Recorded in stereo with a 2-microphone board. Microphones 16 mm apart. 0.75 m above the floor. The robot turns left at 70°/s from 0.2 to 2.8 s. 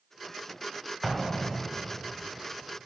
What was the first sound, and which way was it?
An explosion, 5° right (ahead or behind).